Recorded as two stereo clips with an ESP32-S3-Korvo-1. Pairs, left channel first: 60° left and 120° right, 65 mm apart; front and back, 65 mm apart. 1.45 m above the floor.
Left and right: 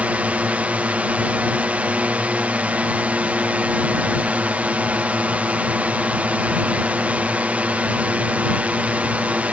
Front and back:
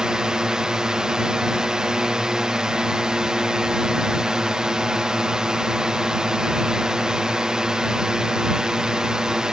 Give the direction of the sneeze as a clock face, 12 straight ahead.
No sneeze in this recording.